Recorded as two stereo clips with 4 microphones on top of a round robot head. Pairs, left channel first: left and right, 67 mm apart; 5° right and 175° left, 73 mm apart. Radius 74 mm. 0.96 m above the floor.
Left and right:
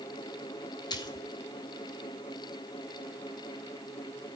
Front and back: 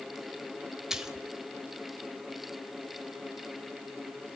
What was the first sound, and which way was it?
A splash, 95° left.